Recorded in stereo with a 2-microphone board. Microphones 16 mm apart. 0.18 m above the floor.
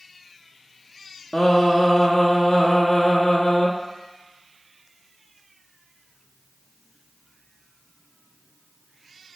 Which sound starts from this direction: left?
Singing, at 1.3 s.